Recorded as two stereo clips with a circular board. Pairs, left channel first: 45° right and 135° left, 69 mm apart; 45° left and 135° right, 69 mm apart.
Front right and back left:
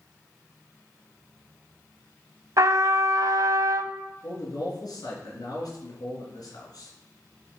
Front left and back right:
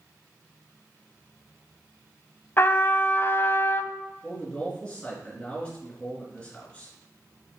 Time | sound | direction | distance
2.6 | a trumpet | 100° left | 0.5 m
4.2 | a man speaking | 25° right | 4 m